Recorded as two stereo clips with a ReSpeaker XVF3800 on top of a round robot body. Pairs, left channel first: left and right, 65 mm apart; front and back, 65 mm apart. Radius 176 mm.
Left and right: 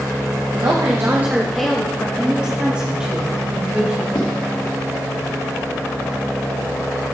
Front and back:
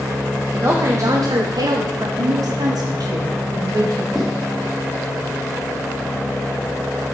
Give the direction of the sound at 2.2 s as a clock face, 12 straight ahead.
6 o'clock.